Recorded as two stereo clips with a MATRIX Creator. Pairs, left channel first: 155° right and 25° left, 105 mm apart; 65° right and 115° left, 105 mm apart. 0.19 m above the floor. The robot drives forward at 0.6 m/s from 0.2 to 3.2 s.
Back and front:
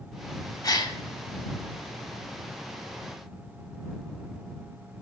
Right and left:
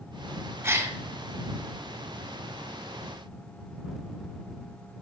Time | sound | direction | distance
0.6 | a gasp | 170° left | 0.6 m